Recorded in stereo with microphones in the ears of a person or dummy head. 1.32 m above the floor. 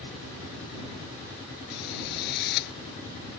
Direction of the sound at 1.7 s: 55° left (ahead or behind).